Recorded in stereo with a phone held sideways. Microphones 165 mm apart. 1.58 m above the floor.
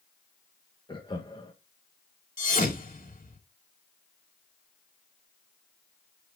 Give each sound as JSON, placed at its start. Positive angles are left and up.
{"t": 0.9, "sound": "laughter", "side_deg": 30, "distance_m": 1.7}
{"t": 2.4, "sound": "a thud", "side_deg": 55, "distance_m": 2.0}